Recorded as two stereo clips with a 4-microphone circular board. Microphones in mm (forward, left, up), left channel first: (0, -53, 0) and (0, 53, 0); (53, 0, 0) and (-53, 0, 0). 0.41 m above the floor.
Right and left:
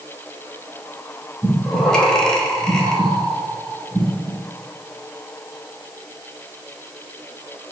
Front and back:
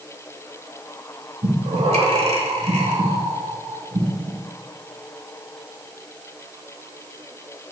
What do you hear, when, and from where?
1.4 s breathing: 175° right, 0.7 m